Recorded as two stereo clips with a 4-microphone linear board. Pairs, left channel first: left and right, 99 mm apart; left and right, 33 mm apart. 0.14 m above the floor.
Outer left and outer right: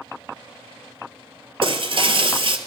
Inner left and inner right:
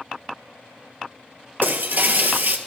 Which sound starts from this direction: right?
Breaking glass, at 1.6 s.